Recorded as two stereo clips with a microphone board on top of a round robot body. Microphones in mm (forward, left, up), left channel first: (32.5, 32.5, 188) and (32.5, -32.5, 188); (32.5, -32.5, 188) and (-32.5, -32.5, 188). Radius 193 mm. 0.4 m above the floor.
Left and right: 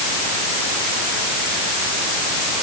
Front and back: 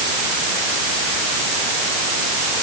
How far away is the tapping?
I don't hear tapping.